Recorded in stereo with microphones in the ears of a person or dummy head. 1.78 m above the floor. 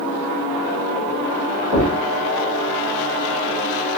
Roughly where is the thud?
Right.